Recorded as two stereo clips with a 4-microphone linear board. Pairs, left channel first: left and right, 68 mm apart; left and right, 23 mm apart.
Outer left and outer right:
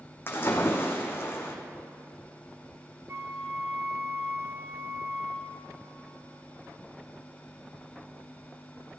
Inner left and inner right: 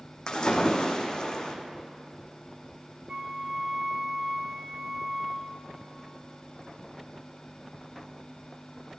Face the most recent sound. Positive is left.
turn(degrees=-45)  # may be behind; listen again after turning